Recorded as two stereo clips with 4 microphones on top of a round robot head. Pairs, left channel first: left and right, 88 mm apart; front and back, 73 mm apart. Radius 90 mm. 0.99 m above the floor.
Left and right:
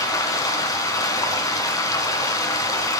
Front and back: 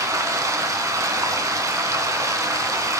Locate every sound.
0.0 s running water: 140° left, 2.0 m